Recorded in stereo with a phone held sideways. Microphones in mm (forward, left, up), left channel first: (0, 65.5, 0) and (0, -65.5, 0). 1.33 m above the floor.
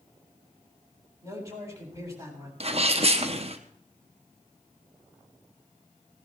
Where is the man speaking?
25° right (ahead or behind), 7.5 m.